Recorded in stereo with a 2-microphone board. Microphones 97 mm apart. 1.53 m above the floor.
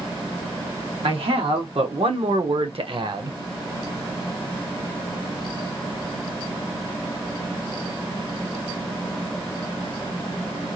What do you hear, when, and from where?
1.0 s a man speaking: 70° right (ahead or behind), 1.6 m; by 3.4 s 45° right (ahead or behind), 0.7 m